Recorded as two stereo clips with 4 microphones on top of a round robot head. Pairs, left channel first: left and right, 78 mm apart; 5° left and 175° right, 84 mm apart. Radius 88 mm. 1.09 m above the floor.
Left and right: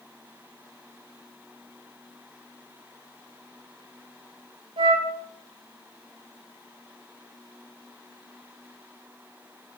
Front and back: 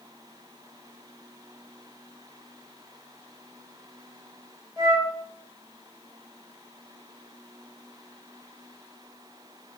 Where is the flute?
115° right, 1.1 m.